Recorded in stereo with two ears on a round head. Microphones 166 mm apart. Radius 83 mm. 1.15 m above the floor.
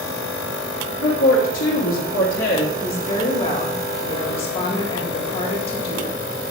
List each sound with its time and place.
1.0 s a woman speaking: 75° left (ahead or behind), 2.5 m
2.8 s a woman speaking: 30° left (ahead or behind), 2 m